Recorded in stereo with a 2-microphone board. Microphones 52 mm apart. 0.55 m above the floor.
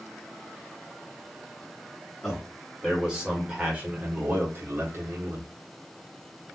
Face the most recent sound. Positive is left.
turn(degrees=-55)  # may be behind; listen again after turning